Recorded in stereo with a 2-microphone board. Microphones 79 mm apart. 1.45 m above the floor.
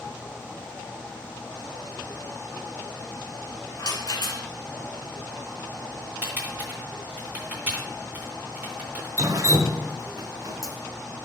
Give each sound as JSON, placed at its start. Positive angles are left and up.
{"t": 3.8, "sound": "a rattle", "side_deg": 60, "distance_m": 1.7}
{"t": 6.2, "sound": "typing on a keyboard", "side_deg": -20, "distance_m": 3.0}
{"t": 9.2, "sound": "dripping", "side_deg": -45, "distance_m": 0.7}